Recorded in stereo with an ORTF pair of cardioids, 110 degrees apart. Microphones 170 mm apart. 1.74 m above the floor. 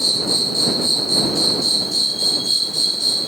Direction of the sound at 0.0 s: Straight ahead.